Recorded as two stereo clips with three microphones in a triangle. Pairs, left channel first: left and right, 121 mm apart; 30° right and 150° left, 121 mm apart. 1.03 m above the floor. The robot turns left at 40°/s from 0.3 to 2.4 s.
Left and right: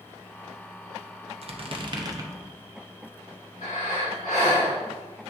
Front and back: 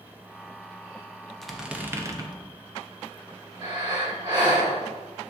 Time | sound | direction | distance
1.4 | a squeak | 115° right | 0.6 m
3.6 | breathing | 95° left | 2 m